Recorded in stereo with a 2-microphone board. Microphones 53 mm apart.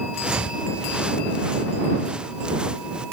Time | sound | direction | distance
0.1 | footsteps | 20° right (ahead or behind) | ?